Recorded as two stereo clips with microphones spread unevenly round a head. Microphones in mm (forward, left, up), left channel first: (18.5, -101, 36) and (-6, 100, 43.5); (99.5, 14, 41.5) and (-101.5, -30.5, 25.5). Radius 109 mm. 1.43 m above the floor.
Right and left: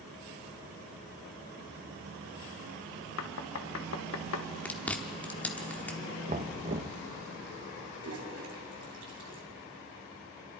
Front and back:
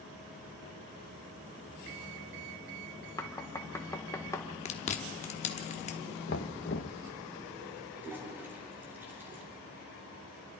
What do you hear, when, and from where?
3.2 s knocking: 65° right, 1.3 m
4.7 s chewing: straight ahead, 1.1 m
6.3 s knocking: 45° left, 0.9 m
8.0 s a toilet flushing: 110° left, 4 m